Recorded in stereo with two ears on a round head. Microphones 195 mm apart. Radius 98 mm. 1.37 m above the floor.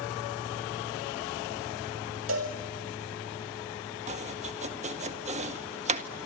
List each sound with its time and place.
2.3 s a cowbell: 65° right (ahead or behind), 5 m
4.1 s chopping: 35° right (ahead or behind), 1.7 m